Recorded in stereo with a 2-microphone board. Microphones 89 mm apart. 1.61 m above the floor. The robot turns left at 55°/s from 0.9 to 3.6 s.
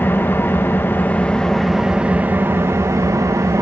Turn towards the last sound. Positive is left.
turn(degrees=-105)